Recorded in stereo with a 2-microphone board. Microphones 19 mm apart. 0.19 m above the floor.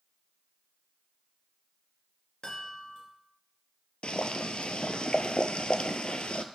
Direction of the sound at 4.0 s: 60° left (ahead or behind).